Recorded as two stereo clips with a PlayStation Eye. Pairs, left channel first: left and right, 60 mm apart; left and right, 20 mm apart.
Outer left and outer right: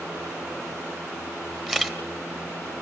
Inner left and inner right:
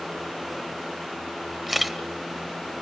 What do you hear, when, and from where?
1.7 s a camera shutter: centre (ahead or behind), 1.0 m